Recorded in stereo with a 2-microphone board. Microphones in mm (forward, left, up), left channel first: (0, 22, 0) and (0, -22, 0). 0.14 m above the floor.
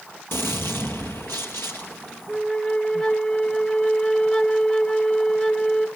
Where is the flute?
15° left (ahead or behind), 1.3 m.